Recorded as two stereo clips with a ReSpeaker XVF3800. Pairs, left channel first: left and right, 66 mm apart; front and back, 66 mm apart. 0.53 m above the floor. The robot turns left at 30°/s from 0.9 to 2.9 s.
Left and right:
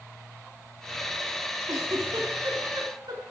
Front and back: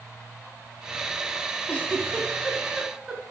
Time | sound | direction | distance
1.7 | a giggle | 65° right | 3.5 m